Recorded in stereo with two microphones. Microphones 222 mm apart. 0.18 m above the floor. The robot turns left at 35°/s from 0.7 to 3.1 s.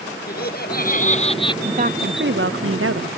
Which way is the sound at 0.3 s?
45° left (ahead or behind).